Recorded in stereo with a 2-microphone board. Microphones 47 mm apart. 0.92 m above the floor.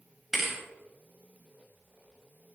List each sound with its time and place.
0.3 s a thud: centre (ahead or behind), 3 m